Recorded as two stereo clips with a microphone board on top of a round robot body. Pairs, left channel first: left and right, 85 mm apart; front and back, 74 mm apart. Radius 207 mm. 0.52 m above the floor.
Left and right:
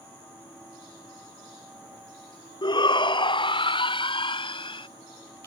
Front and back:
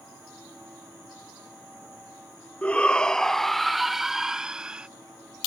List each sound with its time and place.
2.6 s a shout: 70° left; by 4.9 s 105° left